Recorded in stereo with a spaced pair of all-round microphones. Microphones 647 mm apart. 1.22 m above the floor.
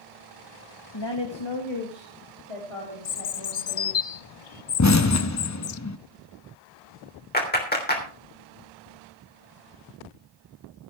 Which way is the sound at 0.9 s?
35° left (ahead or behind).